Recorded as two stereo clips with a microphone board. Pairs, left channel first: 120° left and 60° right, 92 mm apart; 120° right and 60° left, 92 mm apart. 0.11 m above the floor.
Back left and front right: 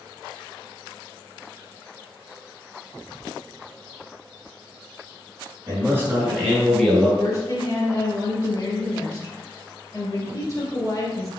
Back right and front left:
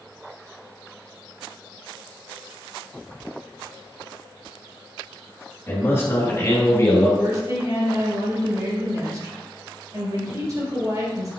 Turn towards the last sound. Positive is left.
turn(degrees=85)